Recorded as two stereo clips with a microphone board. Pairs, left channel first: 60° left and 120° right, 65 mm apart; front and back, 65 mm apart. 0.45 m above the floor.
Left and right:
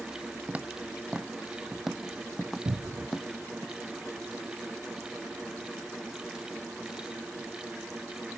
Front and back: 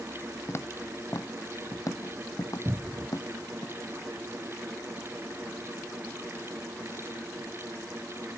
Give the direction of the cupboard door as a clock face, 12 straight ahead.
4 o'clock.